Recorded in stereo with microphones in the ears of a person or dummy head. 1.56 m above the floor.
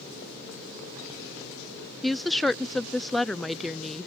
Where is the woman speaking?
5° left (ahead or behind).